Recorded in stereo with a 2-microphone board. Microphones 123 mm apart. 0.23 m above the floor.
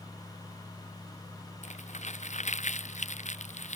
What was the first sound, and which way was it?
Crumpling, 65° left (ahead or behind).